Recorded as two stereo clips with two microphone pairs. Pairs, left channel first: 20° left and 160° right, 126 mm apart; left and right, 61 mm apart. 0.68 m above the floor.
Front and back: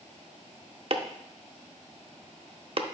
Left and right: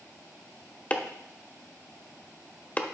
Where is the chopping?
160° left, 0.7 m.